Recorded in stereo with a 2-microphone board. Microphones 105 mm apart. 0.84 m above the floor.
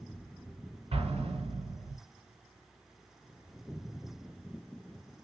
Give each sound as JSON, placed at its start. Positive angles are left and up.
{"t": 0.9, "sound": "an explosion", "side_deg": -75, "distance_m": 2.0}